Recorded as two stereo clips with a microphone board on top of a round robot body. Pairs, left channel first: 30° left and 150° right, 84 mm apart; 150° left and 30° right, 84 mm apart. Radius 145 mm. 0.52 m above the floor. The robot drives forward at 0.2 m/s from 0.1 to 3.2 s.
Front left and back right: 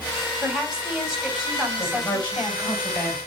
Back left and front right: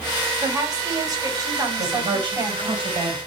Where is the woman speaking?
65° right, 3 m; by 2.8 s 75° right, 3 m.